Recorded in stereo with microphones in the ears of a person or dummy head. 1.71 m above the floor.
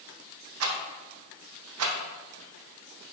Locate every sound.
0.6 s a rattle: 80° right, 0.7 m